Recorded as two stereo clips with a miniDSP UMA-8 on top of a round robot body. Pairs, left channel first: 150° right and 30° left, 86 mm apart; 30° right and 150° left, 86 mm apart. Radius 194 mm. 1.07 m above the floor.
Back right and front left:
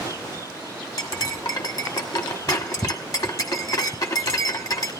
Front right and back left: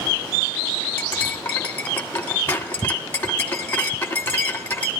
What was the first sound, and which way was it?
Cutlery clinking, 100° right.